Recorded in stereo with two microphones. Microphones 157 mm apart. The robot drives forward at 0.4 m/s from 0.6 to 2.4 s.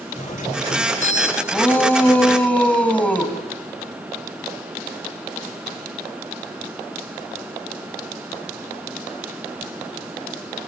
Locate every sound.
0.1 s a doorbell: 55° left (ahead or behind), 3 m; by 1.4 s 50° left (ahead or behind), 3.5 m
1.5 s a shout: 10° left (ahead or behind), 3 m